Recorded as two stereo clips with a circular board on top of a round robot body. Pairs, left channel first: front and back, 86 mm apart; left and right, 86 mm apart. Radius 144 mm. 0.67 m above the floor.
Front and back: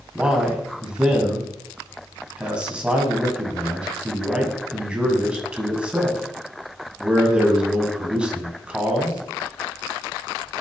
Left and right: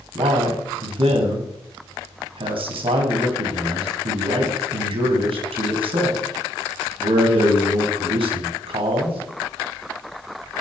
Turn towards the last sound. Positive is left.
turn(degrees=-100)